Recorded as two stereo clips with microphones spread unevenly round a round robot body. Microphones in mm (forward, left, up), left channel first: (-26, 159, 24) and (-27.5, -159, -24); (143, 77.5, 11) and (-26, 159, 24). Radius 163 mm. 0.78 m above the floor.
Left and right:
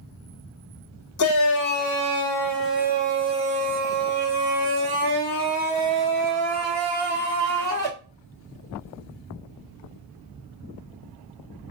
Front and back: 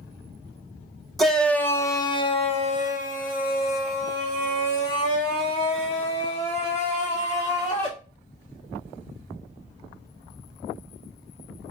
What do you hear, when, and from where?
1.2 s a shout: 60° left, 1.1 m; by 7.9 s 60° right, 3.5 m